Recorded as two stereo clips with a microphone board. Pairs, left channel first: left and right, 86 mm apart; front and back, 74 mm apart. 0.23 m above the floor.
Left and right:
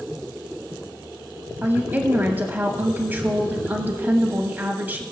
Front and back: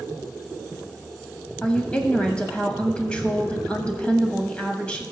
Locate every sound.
1.6 s a woman speaking: 55° right, 1.0 m